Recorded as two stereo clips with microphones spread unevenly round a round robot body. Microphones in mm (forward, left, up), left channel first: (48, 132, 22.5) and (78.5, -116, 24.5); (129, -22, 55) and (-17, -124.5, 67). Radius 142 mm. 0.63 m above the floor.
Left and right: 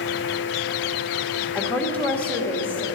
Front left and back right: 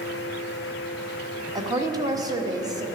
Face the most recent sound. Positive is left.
turn(degrees=170)